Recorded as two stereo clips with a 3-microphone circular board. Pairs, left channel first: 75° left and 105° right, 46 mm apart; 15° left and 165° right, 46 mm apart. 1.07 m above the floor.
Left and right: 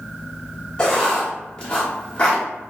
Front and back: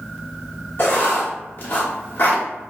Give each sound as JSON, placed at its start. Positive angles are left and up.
{"t": 0.8, "sound": "writing", "azimuth_deg": 5, "distance_m": 1.0}